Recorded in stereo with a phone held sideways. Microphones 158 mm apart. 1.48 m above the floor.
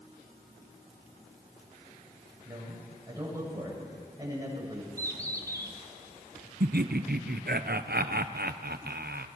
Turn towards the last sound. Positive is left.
turn(degrees=-85)